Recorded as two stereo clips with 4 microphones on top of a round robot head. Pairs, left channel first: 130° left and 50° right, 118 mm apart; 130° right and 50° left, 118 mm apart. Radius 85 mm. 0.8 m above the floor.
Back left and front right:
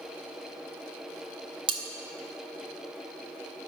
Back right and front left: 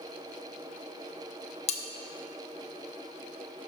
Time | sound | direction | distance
1.7 | cutlery clinking | 100° right | 0.9 m